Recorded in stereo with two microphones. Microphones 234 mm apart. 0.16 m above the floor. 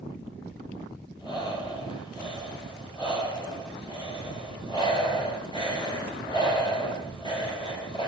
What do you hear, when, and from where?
1.2 s breathing: 20° left (ahead or behind), 4 m